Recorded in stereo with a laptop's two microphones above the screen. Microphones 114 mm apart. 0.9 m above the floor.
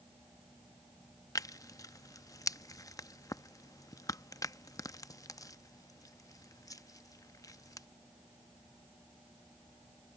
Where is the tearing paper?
30° left (ahead or behind).